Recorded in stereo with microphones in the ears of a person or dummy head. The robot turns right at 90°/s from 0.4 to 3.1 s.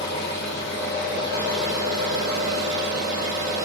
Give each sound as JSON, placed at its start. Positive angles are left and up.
{"t": 0.0, "sound": "an engine running", "azimuth_deg": 65, "distance_m": 1.5}